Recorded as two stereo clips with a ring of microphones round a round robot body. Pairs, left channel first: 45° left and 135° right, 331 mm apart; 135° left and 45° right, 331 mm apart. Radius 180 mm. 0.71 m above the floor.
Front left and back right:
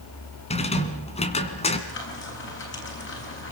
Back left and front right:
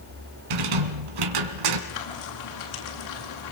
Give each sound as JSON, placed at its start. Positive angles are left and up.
{"t": 0.5, "sound": "a rattle", "azimuth_deg": -30, "distance_m": 2.0}
{"t": 1.9, "sound": "frying", "azimuth_deg": 100, "distance_m": 9.0}